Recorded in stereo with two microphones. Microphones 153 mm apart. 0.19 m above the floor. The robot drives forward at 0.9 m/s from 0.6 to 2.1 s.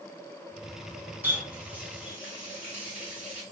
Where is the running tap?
15° right (ahead or behind), 1.1 m; by 3.4 s 10° right (ahead or behind), 1.7 m.